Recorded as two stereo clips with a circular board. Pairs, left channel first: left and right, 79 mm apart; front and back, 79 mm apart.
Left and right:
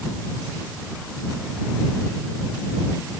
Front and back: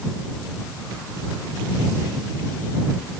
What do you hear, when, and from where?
Only background noise.